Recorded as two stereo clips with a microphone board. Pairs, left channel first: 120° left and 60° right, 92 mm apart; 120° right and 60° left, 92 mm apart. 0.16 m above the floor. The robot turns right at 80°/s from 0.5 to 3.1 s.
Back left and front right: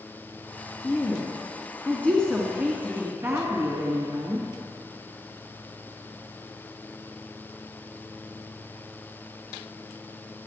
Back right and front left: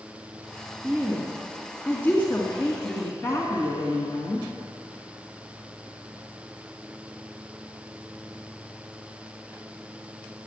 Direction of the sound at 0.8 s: 90° left.